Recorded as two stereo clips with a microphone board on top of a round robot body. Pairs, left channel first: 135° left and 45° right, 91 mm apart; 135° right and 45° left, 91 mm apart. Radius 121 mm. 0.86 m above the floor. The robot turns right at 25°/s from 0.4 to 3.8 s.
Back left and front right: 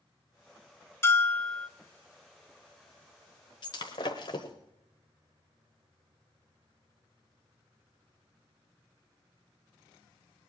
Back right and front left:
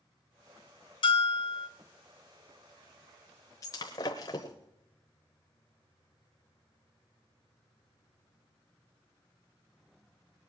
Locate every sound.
1.0 s a bell: 160° right, 1.3 m; by 1.7 s 145° right, 1.3 m
3.6 s breaking glass: 170° left, 0.8 m; by 4.5 s 175° left, 0.8 m